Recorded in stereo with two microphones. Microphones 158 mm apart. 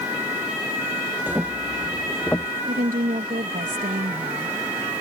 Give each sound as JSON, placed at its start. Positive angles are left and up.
{"t": 1.3, "sound": "footsteps", "side_deg": -10}
{"t": 2.7, "sound": "a woman speaking", "side_deg": -65}